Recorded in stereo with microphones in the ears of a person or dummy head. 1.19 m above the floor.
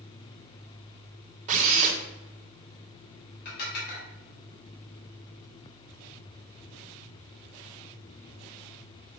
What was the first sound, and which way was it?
A drill, 45° right (ahead or behind).